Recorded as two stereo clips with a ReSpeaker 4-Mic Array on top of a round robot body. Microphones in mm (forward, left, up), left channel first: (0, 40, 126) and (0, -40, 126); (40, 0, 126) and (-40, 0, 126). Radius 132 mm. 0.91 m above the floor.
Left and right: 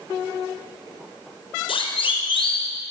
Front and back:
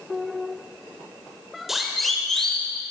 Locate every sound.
1.7 s a siren: 95° left, 4.5 m; by 2.7 s 85° left, 5 m